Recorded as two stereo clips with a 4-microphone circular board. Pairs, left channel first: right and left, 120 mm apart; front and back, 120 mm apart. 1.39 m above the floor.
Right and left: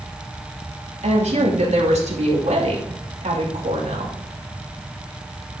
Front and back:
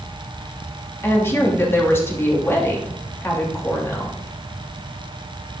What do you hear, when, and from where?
1.0 s a woman speaking: 70° left, 2.5 m